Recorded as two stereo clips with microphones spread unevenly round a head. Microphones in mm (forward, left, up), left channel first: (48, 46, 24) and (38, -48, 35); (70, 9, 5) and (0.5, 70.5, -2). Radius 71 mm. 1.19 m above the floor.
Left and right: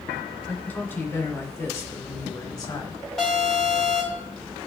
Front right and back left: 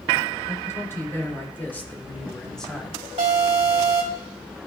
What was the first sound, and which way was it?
A man speaking, 15° left.